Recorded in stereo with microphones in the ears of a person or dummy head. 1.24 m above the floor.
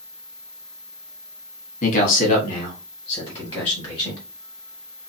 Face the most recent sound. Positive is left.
turn(degrees=10)  # may be behind; listen again after turning